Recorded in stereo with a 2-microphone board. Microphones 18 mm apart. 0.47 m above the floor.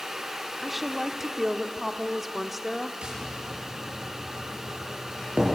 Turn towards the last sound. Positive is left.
turn(degrees=-75)  # may be behind; listen again after turning